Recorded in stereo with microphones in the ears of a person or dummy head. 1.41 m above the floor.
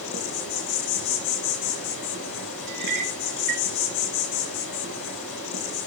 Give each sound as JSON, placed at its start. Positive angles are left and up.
{"t": 0.0, "sound": "an insect", "side_deg": 70, "distance_m": 9.5}
{"t": 2.7, "sound": "a clink", "side_deg": -50, "distance_m": 1.9}